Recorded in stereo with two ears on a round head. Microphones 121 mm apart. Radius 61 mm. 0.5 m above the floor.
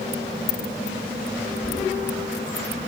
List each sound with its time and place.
1.6 s knocking: 45° left (ahead or behind), 5.5 m